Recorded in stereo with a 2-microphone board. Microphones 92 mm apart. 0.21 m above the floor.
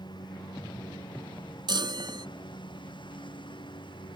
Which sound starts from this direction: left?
A lawn mower, at 0.0 s.